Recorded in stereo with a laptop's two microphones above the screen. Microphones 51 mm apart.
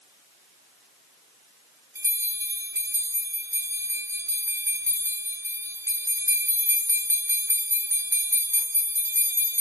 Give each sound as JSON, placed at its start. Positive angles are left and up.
{"t": 1.9, "sound": "a bell", "side_deg": -65, "distance_m": 0.9}